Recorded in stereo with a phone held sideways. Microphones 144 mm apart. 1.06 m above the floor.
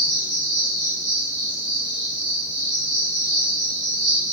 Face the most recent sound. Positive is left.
turn(degrees=55)  # may be behind; listen again after turning